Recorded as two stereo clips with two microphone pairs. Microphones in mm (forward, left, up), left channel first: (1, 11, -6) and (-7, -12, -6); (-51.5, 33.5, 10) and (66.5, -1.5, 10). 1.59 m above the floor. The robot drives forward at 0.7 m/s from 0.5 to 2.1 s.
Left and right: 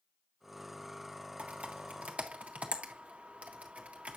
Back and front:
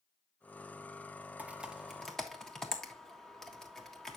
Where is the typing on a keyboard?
95° right, 1.6 m; by 4.2 s 110° right, 1.7 m.